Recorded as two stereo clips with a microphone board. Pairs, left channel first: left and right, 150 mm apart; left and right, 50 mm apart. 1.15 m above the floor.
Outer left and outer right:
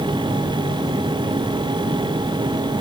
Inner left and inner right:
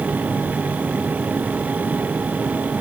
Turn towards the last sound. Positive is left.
No sound to turn to.